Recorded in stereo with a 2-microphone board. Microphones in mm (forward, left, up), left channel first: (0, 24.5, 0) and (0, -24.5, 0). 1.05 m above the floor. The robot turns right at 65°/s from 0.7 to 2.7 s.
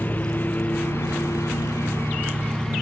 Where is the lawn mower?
40° left; by 2.8 s 170° left.